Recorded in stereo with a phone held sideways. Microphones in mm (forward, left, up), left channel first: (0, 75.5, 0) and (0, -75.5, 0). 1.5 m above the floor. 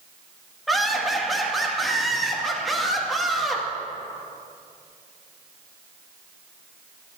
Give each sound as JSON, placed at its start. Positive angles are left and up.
{"t": 0.7, "sound": "laughter", "side_deg": 0, "distance_m": 1.9}